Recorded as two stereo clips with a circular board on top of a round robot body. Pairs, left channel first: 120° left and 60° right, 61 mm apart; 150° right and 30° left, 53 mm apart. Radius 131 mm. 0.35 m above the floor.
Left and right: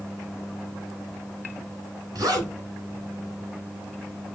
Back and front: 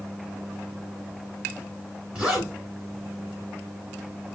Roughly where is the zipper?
Ahead right.